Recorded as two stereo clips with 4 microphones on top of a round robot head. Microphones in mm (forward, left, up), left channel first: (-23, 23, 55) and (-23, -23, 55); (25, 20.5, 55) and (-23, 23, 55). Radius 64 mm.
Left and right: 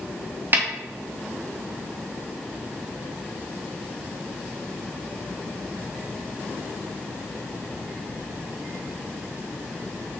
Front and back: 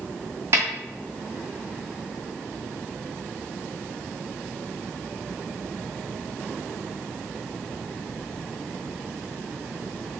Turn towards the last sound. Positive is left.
turn(degrees=-135)